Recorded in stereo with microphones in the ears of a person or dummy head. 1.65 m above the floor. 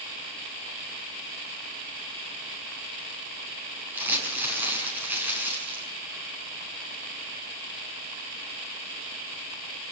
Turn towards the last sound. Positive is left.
turn(degrees=-10)  # may be behind; listen again after turning